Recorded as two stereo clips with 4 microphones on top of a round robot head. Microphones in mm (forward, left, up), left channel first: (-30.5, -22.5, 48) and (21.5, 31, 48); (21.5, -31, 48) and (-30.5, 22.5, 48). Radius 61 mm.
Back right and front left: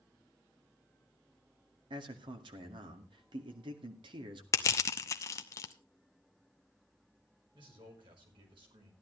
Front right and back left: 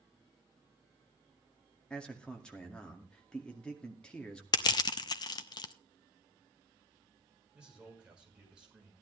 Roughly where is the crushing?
Right.